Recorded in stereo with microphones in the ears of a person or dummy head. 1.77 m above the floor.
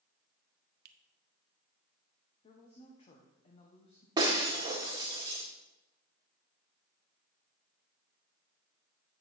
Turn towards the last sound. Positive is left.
turn(degrees=-15)  # may be behind; listen again after turning